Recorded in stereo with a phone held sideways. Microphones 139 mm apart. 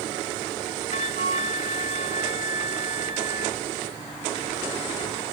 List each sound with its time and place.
0.9 s a flute: 50° left (ahead or behind)